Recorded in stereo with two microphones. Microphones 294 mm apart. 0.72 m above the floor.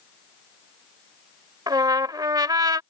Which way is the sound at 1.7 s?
15° right (ahead or behind).